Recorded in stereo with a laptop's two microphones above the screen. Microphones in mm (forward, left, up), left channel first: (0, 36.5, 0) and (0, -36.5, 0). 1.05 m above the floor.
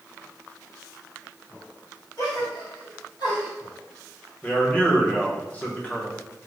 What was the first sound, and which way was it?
A gasp, 70° left (ahead or behind).